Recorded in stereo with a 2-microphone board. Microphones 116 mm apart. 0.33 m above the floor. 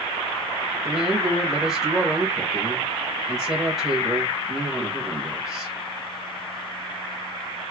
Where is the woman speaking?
5° right (ahead or behind), 1.2 m.